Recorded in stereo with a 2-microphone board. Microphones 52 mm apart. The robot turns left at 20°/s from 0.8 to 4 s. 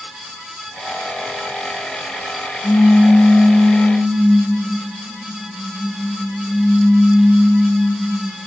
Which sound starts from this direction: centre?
A pop, at 2.6 s.